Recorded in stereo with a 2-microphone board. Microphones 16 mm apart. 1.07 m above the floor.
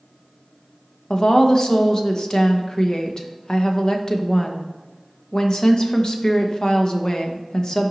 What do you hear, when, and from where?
1.1 s a woman speaking: 40° left (ahead or behind), 0.9 m